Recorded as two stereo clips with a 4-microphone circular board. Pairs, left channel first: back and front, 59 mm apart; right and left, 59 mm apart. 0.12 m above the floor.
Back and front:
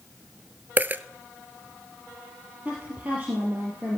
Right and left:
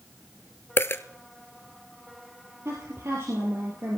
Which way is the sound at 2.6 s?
60° left.